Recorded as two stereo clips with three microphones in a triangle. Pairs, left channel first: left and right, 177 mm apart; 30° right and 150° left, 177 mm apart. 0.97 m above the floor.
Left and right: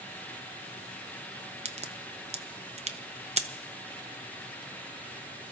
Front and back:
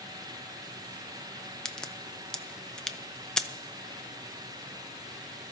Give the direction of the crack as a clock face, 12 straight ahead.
4 o'clock.